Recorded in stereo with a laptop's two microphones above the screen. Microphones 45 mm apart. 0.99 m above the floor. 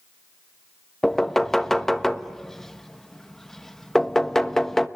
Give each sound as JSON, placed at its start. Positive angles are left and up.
{"t": 1.0, "sound": "knocking", "side_deg": 10, "distance_m": 1.1}